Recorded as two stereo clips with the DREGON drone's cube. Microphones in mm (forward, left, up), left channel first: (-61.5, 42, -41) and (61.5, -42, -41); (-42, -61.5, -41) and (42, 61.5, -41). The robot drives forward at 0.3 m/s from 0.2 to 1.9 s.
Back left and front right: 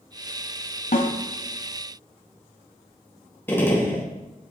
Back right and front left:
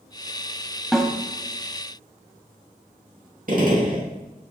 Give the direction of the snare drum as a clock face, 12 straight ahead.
7 o'clock.